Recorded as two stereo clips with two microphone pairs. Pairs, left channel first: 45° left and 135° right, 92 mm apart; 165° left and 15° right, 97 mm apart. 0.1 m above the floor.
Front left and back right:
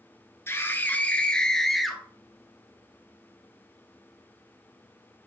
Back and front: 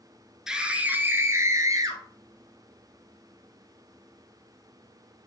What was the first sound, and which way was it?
A scream, 60° left.